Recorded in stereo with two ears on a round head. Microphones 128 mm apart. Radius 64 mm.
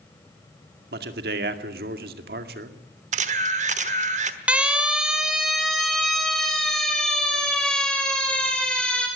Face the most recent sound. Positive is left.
turn(degrees=5)  # may be behind; listen again after turning